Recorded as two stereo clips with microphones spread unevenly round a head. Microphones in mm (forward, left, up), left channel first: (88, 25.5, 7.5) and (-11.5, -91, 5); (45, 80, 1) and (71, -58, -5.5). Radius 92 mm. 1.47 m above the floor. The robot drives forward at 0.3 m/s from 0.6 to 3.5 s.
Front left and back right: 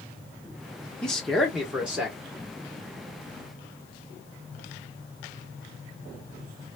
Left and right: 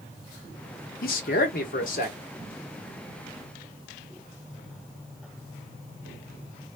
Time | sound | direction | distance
1.0 | a man speaking | 135° left | 0.8 m